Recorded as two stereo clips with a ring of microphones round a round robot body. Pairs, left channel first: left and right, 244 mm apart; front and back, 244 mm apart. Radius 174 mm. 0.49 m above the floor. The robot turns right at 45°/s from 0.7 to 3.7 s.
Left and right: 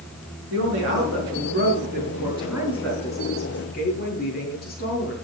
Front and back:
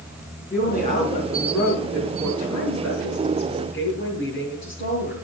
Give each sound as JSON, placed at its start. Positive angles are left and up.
{"t": 0.5, "sound": "a woman speaking", "azimuth_deg": -85, "distance_m": 5.5}